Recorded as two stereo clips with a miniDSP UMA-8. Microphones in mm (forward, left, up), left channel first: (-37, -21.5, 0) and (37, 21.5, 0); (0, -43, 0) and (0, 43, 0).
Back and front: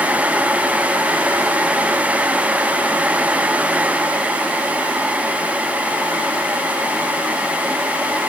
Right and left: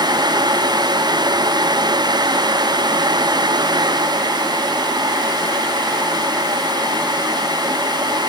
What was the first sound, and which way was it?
Only background noise.